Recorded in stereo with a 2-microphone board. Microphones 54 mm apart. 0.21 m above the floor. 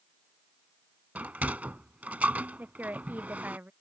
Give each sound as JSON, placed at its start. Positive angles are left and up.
{"t": 1.1, "sound": "a sliding door", "side_deg": -30}
{"t": 2.6, "sound": "a woman speaking", "side_deg": -35}